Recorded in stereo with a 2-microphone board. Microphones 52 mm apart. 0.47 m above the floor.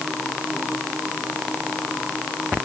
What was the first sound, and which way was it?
Only background noise.